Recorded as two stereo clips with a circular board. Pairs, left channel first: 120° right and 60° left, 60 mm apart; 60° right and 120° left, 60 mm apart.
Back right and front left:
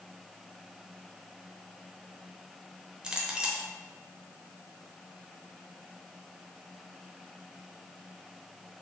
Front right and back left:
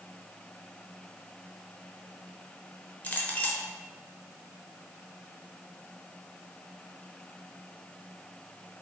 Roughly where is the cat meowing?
No cat meowing in this recording.